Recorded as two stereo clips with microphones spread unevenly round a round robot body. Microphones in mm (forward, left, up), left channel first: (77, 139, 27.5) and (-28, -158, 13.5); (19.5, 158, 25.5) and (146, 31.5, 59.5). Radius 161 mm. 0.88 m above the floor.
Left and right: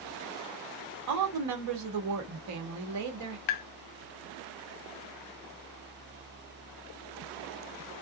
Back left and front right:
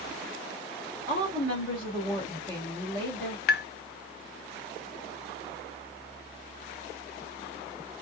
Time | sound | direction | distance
1.1 | a woman speaking | 145° right | 1.3 m
3.5 | tapping | 100° left | 0.5 m